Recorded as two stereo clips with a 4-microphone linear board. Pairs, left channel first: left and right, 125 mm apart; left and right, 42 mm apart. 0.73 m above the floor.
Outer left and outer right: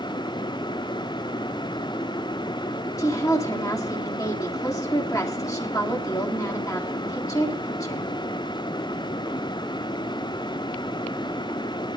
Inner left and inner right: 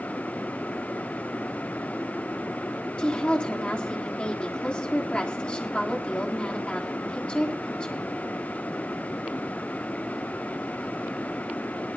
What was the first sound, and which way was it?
A woman speaking, 25° left (ahead or behind).